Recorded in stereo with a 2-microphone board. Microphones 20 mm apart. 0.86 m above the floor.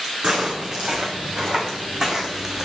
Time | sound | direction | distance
0.2 | footsteps | 50° right (ahead or behind) | 3 m